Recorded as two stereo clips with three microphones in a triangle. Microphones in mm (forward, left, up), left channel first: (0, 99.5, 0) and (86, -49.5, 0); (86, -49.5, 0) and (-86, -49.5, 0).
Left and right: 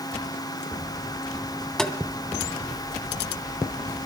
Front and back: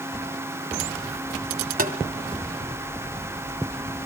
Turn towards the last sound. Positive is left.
turn(degrees=-155)